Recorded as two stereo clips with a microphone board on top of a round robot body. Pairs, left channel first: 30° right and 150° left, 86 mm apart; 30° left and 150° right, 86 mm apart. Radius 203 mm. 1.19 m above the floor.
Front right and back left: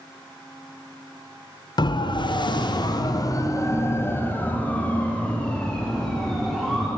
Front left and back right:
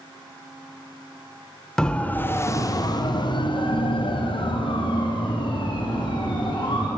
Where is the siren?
50° right, 2.5 m; by 6.9 s 55° left, 6.5 m.